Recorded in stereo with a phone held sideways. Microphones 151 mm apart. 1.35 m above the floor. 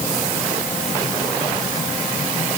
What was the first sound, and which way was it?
Only background noise.